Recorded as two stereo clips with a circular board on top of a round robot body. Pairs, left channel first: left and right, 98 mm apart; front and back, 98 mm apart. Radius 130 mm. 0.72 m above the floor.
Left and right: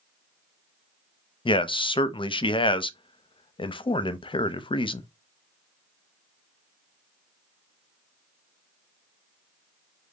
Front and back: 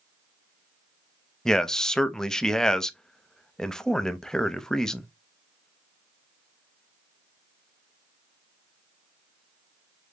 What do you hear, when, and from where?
1.4 s a man speaking: 85° left, 0.7 m